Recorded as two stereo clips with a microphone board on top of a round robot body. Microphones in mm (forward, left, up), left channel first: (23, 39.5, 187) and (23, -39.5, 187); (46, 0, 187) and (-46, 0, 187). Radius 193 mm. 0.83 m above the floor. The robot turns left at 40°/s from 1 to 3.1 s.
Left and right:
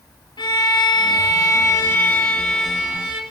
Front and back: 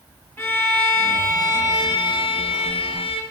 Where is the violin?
65° left, 3 m; by 3.2 s 20° right, 3 m.